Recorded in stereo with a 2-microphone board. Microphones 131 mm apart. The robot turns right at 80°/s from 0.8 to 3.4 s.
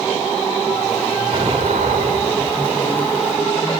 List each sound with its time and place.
1.3 s an explosion: 140° right, 3.5 m; by 2.7 s 30° right, 3.5 m